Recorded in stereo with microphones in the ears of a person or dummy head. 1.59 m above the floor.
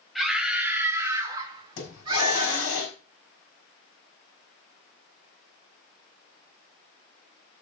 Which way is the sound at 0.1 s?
5° right (ahead or behind).